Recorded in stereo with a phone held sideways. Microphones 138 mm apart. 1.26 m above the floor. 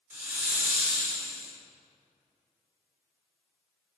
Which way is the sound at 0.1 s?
15° right (ahead or behind).